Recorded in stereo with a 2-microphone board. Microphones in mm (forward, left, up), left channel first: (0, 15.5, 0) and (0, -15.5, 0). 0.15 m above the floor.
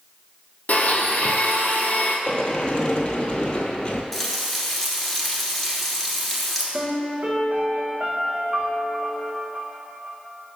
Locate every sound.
0.7 s a blender: 55° left (ahead or behind), 1.1 m
2.3 s a sliding door: 35° left (ahead or behind), 0.8 m
4.1 s frying: 5° left (ahead or behind), 1.4 m
6.7 s a piano: 55° right (ahead or behind), 2 m